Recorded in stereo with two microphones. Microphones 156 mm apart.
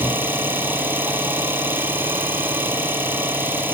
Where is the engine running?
15° right (ahead or behind), 0.8 m.